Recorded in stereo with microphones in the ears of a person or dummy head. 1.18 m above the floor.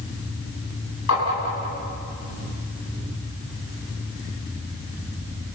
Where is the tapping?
85° left, 9.5 m.